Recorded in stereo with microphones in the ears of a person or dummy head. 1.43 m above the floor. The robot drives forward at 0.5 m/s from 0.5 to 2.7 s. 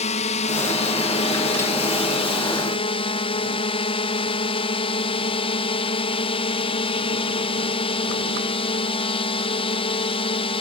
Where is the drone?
35° left (ahead or behind); by 10.6 s 30° left (ahead or behind).